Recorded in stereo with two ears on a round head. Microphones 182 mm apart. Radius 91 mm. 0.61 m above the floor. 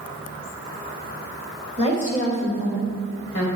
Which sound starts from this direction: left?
A woman speaking, at 1.8 s.